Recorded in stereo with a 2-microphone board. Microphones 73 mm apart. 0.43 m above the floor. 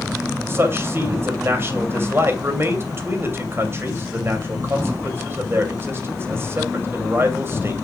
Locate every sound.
0.5 s a man speaking: 35° right (ahead or behind), 2.5 m